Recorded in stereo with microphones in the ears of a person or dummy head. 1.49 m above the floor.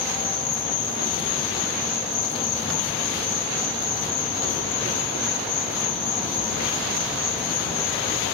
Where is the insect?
Centre (ahead or behind), 8.5 m.